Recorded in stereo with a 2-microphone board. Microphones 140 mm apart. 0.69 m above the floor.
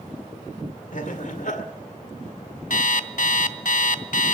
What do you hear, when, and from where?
0.9 s laughter: 65° left (ahead or behind), 2.0 m
2.7 s an alarm clock: 70° left (ahead or behind), 0.6 m